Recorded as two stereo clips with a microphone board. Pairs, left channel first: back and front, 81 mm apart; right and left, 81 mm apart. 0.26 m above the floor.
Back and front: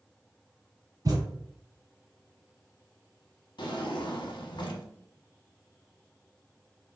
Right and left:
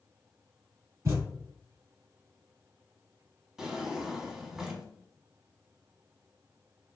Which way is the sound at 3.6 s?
170° left.